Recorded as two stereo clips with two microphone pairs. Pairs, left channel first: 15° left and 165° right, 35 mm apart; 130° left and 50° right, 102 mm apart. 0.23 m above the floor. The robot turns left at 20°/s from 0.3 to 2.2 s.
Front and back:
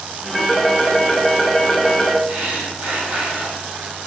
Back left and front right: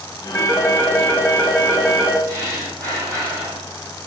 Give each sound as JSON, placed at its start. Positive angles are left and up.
{"t": 0.3, "sound": "a phone ringing", "azimuth_deg": 95, "distance_m": 0.5}
{"t": 2.3, "sound": "breathing", "azimuth_deg": -105, "distance_m": 1.0}